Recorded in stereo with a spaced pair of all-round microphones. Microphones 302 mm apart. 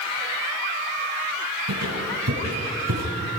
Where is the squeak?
80° right, 6.5 m.